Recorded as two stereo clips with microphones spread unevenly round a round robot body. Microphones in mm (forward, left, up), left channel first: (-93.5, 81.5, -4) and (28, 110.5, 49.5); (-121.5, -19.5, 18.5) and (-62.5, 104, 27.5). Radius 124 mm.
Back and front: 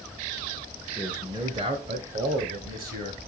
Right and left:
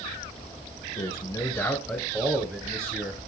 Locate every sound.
1.0 s a man speaking: 100° right, 1.1 m; by 3.2 s straight ahead, 1.9 m